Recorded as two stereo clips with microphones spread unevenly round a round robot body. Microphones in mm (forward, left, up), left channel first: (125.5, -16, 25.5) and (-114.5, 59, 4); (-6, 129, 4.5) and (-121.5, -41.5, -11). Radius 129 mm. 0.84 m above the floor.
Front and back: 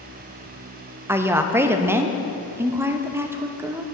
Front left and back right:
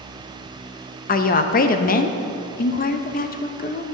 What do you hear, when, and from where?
1.1 s a woman speaking: 90° left, 0.6 m